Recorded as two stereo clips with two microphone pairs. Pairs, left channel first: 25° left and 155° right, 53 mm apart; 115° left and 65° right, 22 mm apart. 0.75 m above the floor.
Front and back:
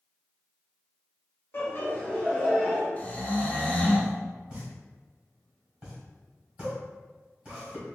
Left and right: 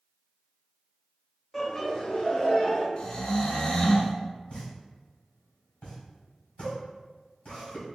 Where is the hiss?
No hiss in this recording.